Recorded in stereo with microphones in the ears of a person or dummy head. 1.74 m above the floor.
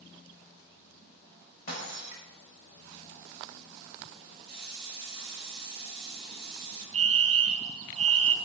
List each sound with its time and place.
1.7 s breaking glass: 55° left (ahead or behind), 5 m
4.5 s a hiss: 30° left (ahead or behind), 8.5 m
6.9 s a fire alarm: 25° right (ahead or behind), 0.8 m